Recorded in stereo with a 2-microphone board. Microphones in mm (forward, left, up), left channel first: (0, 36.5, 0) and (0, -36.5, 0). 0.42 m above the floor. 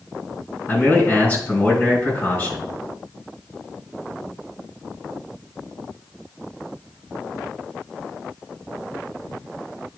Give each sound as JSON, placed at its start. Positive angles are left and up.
{"t": 0.7, "sound": "a man speaking", "side_deg": 25, "distance_m": 4.5}